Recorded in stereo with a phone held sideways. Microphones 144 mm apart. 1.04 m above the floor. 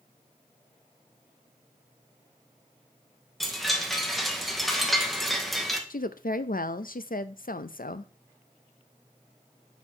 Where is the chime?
Centre (ahead or behind), 1.1 m.